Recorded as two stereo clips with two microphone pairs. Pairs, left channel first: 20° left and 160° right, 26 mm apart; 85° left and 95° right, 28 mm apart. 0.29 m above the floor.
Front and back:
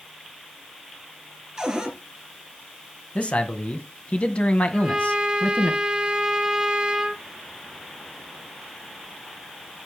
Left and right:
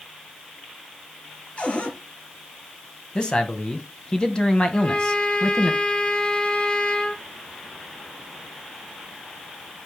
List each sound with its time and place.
1.6 s a cupboard door: 135° left, 2.5 m
3.1 s a man speaking: 30° left, 1.6 m
4.7 s a trumpet: 140° left, 1.5 m